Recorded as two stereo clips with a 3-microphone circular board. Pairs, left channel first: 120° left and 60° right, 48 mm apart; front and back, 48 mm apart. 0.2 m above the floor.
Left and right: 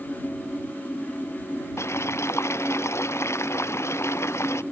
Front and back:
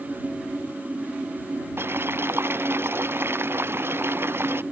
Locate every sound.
1.8 s boiling: 145° left